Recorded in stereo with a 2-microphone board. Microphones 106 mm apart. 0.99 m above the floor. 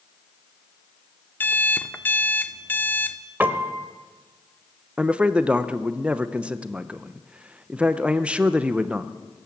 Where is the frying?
No frying in this recording.